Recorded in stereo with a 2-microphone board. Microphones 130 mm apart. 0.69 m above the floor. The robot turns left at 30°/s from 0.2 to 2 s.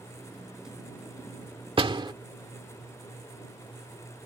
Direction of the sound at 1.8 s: 45° right (ahead or behind).